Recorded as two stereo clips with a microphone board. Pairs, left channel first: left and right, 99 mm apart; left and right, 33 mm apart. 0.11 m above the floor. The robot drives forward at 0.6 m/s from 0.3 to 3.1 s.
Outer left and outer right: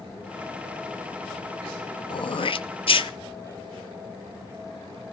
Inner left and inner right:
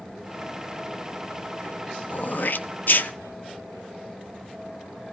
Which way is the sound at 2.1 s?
50° left (ahead or behind).